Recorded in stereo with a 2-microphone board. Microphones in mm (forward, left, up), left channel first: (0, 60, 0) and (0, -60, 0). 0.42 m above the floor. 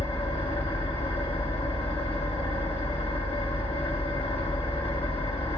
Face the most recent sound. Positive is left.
turn(degrees=55)  # may be behind; listen again after turning